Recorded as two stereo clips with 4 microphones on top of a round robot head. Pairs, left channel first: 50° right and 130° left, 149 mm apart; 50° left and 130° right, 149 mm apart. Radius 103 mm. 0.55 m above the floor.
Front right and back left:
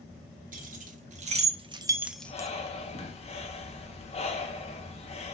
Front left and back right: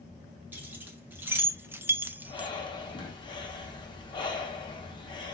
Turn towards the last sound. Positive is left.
turn(degrees=-5)